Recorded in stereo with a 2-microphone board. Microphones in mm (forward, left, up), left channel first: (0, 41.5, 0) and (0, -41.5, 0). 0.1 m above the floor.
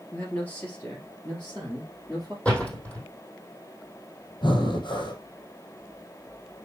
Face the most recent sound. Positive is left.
turn(degrees=70)  # may be behind; listen again after turning